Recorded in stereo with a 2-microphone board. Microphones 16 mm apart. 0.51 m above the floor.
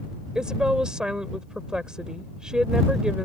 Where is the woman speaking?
60° right (ahead or behind).